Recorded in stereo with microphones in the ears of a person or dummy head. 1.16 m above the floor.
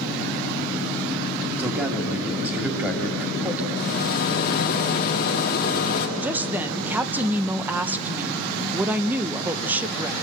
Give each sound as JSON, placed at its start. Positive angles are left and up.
{"t": 1.6, "sound": "a man speaking", "side_deg": -10, "distance_m": 2.5}
{"t": 3.8, "sound": "a rattle", "side_deg": 50, "distance_m": 1.7}
{"t": 6.2, "sound": "a woman speaking", "side_deg": -10, "distance_m": 0.7}